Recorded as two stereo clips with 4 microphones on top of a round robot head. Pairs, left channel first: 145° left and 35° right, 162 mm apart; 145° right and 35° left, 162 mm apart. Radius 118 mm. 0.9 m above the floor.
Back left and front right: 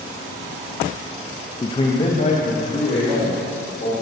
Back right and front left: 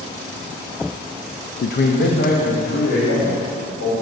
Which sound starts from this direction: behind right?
A man speaking, at 1.6 s.